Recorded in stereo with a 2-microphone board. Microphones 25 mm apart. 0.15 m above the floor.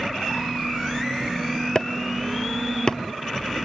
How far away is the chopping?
About 0.9 m.